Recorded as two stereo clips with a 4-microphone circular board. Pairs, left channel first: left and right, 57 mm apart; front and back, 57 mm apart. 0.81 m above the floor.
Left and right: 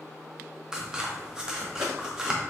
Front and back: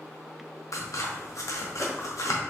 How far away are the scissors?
About 0.9 m.